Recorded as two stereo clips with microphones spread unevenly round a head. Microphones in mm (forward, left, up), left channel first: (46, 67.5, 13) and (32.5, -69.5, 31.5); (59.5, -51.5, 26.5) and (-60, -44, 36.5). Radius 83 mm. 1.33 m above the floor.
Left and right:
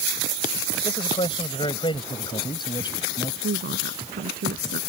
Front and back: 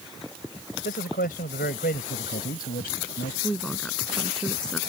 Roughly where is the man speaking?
Ahead left.